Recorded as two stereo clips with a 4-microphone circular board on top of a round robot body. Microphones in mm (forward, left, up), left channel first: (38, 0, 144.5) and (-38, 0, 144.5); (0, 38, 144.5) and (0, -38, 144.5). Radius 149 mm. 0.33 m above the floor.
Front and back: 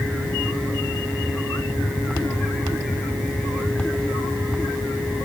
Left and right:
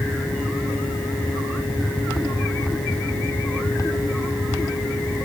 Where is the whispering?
No whispering in this recording.